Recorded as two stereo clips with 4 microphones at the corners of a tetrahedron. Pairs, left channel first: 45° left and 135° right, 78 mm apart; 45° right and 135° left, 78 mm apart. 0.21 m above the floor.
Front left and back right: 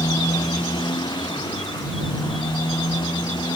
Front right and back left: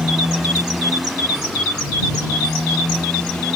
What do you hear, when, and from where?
0.0 s a motorcycle: 50° left; by 3.6 s 35° left